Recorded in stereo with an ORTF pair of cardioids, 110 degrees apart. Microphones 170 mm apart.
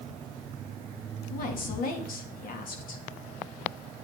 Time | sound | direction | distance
1.3 | a woman speaking | 60° left | 2 m